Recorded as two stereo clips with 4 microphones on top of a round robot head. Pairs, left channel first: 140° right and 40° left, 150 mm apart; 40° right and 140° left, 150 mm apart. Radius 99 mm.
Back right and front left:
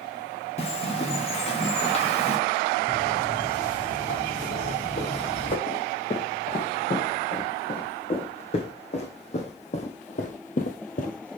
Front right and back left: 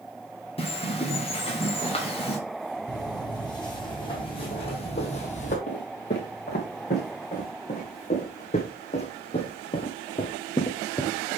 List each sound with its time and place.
0.6 s a bird: 90° right, 2.5 m
2.9 s footsteps: 105° right, 4 m; by 5.6 s 85° right, 2 m
5.7 s footsteps: 85° right, 4 m; by 11.4 s 115° right, 1.0 m